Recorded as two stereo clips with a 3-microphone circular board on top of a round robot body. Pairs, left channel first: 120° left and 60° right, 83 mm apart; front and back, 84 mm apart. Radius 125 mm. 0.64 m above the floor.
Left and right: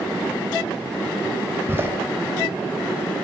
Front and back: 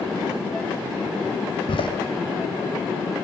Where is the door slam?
5° left, 3 m.